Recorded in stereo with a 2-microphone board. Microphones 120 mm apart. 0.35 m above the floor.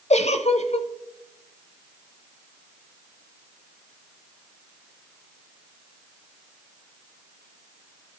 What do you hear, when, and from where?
0.1 s a giggle: 65° left (ahead or behind), 0.6 m